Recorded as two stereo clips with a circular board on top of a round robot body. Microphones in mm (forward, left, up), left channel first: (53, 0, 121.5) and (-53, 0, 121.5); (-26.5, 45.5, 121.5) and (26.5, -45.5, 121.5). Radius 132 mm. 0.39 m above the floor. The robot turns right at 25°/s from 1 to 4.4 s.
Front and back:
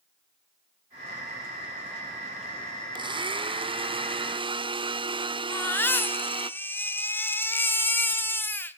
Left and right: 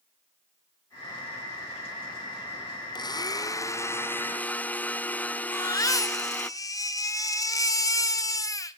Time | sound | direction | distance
3.0 | a blender | 155° left | 0.9 m
5.5 | a baby crying | 70° left | 1.4 m